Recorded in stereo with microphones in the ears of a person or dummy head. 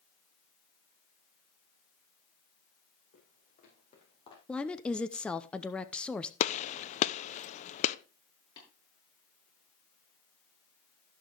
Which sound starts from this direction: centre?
A woman speaking, at 4.5 s.